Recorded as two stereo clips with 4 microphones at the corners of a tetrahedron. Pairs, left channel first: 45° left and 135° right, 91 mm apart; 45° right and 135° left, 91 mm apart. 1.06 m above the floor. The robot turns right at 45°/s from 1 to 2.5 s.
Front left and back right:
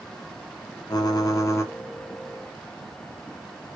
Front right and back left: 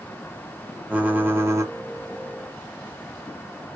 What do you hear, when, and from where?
0.9 s typing on a keyboard: 65° left, 0.5 m; by 1.7 s 100° left, 0.5 m